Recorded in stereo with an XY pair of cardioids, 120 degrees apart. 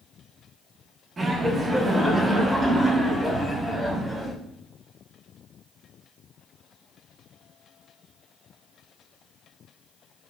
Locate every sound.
1.2 s laughter: 30° right, 1.0 m; by 4.3 s 5° right, 2.5 m